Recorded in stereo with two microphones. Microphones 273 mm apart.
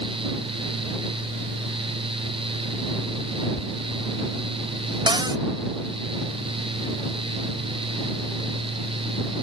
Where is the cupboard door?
15° right (ahead or behind).